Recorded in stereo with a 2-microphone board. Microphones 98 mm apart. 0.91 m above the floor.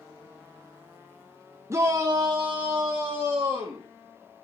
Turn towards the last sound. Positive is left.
turn(degrees=-50)  # may be behind; listen again after turning